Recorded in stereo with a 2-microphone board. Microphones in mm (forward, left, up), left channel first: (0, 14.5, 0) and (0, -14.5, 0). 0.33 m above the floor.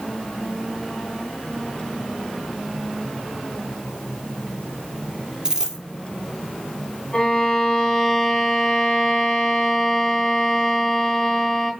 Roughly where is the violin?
Left.